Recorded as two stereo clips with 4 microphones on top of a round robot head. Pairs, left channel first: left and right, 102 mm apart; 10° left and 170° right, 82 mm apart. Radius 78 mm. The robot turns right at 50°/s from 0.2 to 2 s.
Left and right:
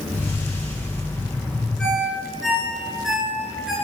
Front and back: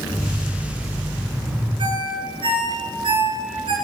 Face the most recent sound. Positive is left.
turn(degrees=-175)